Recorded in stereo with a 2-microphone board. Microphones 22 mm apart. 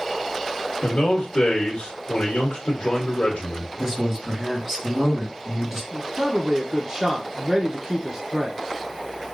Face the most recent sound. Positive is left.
turn(degrees=-30)  # may be behind; listen again after turning